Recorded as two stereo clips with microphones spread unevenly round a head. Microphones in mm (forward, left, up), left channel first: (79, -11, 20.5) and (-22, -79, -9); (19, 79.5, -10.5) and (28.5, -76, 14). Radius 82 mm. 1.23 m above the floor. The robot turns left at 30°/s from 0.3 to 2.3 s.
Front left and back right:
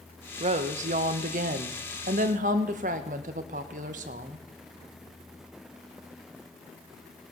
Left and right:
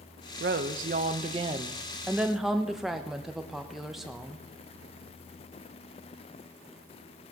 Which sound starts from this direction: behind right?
A woman speaking, at 0.4 s.